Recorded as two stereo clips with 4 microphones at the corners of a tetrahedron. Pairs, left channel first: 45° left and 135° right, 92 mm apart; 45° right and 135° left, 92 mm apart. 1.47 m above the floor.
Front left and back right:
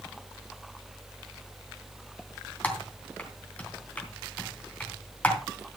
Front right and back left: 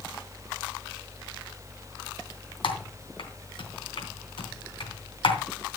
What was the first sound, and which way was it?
Typing on a keyboard, 25° right.